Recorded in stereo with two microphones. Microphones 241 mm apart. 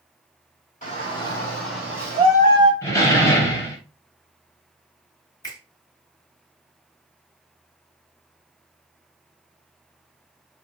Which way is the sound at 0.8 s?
30° left (ahead or behind).